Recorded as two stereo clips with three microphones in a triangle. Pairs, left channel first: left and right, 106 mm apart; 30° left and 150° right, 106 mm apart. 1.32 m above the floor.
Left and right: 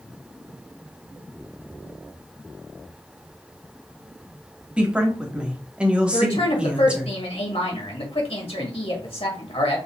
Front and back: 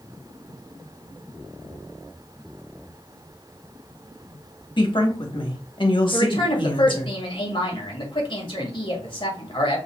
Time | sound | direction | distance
4.8 | a woman speaking | 10° right | 1.3 m
6.1 | a woman speaking | 65° left | 2.0 m